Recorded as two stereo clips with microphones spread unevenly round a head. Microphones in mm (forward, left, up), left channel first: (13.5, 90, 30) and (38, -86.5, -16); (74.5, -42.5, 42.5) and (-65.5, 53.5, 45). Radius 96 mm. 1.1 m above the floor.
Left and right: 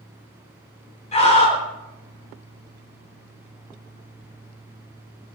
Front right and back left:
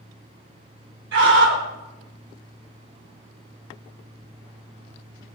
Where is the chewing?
I don't hear chewing.